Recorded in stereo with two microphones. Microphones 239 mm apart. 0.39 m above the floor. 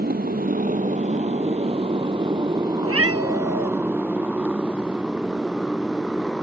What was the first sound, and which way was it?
A motorcycle, 40° right (ahead or behind).